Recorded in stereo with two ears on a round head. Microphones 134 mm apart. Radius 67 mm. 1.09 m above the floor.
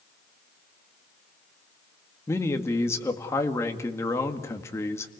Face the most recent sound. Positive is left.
turn(degrees=20)  # may be behind; listen again after turning